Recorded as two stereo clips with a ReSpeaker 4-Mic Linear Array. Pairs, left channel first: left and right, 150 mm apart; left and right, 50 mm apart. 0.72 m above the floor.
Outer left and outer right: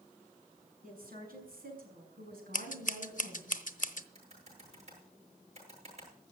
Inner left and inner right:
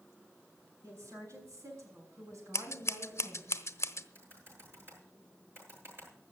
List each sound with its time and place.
0.8 s a woman speaking: 70° right (ahead or behind), 6 m; by 3.5 s 80° right, 5 m
2.5 s scissors: 60° left (ahead or behind), 1.0 m
4.2 s typing on a keyboard: 45° right (ahead or behind), 8.5 m